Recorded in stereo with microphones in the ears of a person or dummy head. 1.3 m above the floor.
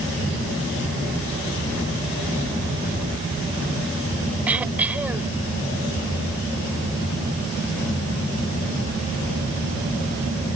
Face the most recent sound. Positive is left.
turn(degrees=-5)  # may be behind; listen again after turning